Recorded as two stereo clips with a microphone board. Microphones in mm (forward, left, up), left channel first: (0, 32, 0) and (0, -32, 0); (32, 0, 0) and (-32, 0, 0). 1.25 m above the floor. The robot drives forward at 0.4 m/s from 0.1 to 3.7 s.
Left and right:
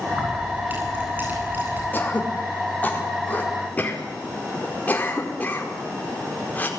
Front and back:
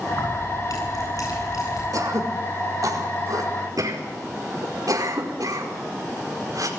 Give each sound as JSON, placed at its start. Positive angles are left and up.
{"t": 0.1, "sound": "keys jangling", "azimuth_deg": -25, "distance_m": 10.0}
{"t": 1.9, "sound": "throat clearing", "azimuth_deg": 150, "distance_m": 4.0}